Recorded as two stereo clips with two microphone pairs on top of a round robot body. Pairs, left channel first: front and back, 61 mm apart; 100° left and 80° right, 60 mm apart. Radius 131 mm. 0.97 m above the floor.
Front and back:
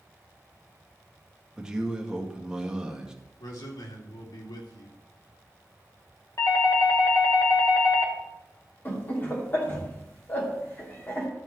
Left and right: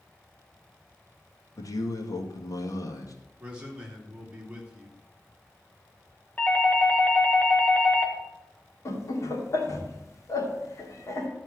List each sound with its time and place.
1.6 s a man speaking: 105° left, 2 m
3.4 s a man speaking: 5° right, 2.5 m
6.4 s a doorbell: 40° left, 2.0 m
8.8 s laughter: 65° left, 2.5 m